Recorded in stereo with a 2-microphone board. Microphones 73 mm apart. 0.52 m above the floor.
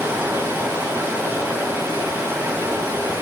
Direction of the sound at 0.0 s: 30° right (ahead or behind).